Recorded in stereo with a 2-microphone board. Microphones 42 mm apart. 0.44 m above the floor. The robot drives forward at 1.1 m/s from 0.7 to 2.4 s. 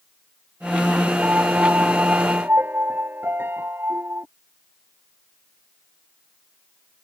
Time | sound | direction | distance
1.2 | a piano | 45° right (ahead or behind) | ?